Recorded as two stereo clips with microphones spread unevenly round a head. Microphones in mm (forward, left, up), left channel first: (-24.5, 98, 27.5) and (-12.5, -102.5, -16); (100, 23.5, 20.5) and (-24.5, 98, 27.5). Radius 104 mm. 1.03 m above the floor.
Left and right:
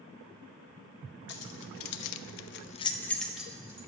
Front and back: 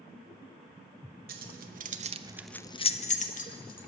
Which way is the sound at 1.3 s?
130° left.